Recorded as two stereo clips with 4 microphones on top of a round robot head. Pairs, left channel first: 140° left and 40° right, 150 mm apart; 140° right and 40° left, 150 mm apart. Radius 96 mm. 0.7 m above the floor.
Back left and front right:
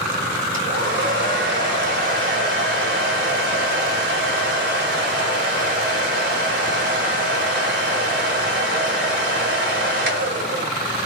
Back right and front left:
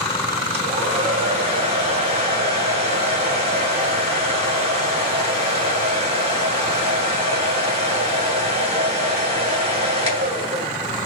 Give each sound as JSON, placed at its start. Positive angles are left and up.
{"t": 0.5, "sound": "a hair dryer", "azimuth_deg": -15, "distance_m": 2.5}